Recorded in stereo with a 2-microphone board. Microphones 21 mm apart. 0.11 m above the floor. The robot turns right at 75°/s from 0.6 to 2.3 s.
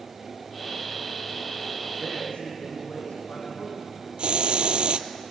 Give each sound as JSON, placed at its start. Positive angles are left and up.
{"t": 2.0, "sound": "a man speaking", "side_deg": 55, "distance_m": 5.0}
{"t": 4.2, "sound": "a hiss", "side_deg": -65, "distance_m": 0.6}